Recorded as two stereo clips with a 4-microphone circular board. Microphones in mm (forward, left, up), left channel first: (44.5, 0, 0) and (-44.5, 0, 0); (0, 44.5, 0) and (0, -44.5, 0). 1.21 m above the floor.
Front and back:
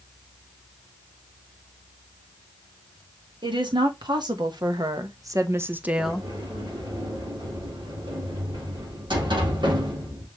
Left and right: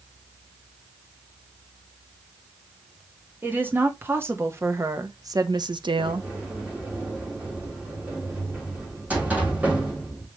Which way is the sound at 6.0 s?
160° right.